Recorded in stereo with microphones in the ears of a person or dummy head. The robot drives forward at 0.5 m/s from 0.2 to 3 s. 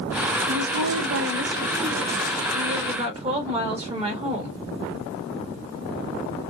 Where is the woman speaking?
85° right, 0.7 m; by 4.6 s 30° right (ahead or behind), 1.5 m.